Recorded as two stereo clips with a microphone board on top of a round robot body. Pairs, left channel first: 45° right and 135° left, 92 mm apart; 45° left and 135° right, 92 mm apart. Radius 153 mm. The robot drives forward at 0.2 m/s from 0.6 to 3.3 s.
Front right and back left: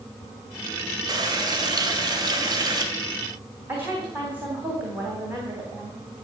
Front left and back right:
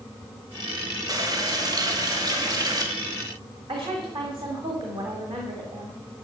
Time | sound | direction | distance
1.1 | a running tap | 175° left | 1.7 m
3.7 | a woman speaking | 155° right | 3 m